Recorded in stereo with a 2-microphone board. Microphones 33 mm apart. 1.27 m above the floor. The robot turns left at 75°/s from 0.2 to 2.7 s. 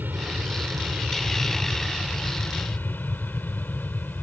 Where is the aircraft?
65° right (ahead or behind); by 4.2 s 65° left (ahead or behind).